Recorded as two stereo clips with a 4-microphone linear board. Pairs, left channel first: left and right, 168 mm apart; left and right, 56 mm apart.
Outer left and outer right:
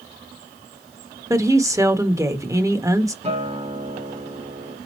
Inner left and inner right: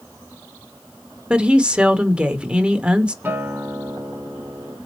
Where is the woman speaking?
20° right (ahead or behind), 0.8 m.